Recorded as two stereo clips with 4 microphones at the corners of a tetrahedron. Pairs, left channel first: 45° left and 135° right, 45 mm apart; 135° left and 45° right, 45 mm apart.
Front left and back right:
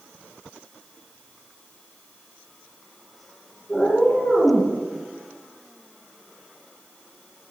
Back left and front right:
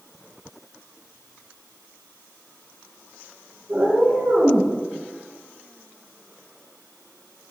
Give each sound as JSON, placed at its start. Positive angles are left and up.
{"t": 3.7, "sound": "a cat meowing", "azimuth_deg": -30, "distance_m": 6.0}